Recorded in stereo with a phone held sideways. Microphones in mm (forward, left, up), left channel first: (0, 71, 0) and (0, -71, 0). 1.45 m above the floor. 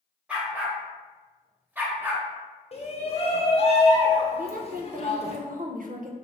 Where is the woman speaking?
65° right (ahead or behind), 0.6 m.